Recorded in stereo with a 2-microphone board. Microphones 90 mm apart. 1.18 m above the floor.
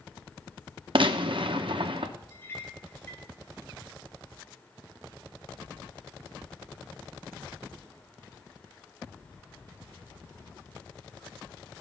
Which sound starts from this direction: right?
A gunshot, at 0.9 s.